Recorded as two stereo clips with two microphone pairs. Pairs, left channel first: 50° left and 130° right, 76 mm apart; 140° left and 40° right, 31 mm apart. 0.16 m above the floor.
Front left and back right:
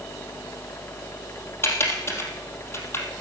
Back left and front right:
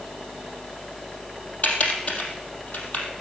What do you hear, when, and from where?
1.6 s typing on a keyboard: 105° left, 3 m